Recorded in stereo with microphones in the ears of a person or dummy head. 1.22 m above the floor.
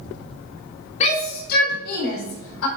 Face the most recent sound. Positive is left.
turn(degrees=75)  # may be behind; listen again after turning